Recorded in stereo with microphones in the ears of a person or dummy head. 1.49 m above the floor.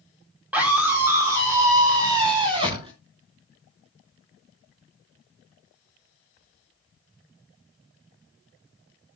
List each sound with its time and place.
0.5 s a scream: 10° right (ahead or behind), 5 m; by 2.9 s 30° right (ahead or behind), 6.5 m